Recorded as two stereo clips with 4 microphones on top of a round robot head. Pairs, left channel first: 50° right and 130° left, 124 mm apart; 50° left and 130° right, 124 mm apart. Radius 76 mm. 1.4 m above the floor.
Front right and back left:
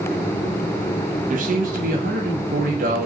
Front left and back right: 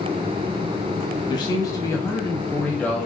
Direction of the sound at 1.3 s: 110° left.